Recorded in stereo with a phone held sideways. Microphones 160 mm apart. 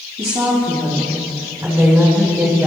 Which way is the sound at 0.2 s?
35° right (ahead or behind).